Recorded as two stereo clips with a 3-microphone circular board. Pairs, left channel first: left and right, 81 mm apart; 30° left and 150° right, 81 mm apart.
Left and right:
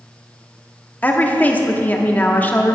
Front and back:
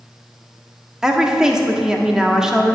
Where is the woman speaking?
130° left, 0.7 m.